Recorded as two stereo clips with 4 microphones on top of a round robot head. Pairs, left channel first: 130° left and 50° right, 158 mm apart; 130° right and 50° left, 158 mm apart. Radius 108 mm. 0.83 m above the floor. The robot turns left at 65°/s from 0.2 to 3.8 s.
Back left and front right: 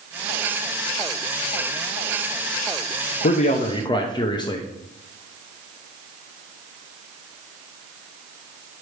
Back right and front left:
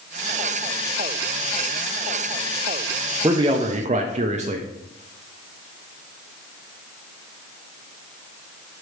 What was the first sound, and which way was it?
A man speaking, 115° left.